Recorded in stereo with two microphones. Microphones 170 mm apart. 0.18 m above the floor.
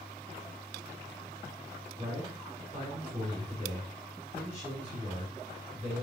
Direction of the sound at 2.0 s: 45° right (ahead or behind).